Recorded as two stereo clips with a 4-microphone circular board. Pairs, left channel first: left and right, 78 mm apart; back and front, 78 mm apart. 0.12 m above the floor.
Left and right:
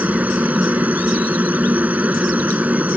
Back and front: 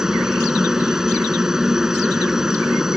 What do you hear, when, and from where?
0.0 s a helicopter: 70° right